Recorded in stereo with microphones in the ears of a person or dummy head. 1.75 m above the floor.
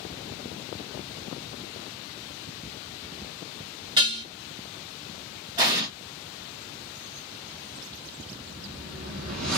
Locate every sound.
4.0 s dishes clattering: 25° right (ahead or behind), 0.8 m
5.6 s an explosion: 25° right (ahead or behind), 0.8 m
8.3 s a whoosh: 50° right (ahead or behind), 0.6 m